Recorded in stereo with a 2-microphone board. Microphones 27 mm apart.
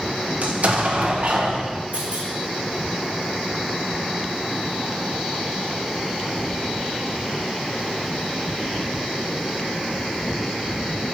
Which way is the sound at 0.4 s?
60° right (ahead or behind).